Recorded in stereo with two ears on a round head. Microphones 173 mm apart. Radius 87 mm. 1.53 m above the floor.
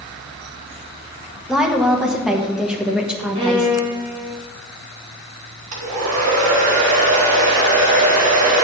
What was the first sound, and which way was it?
A woman speaking, 5° right (ahead or behind).